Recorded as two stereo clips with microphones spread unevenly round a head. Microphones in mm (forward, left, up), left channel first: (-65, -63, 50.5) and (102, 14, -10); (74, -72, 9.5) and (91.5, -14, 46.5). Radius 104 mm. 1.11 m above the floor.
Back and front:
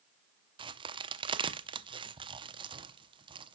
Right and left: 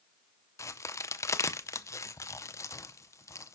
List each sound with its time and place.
0.6 s a crack: 50° right, 0.7 m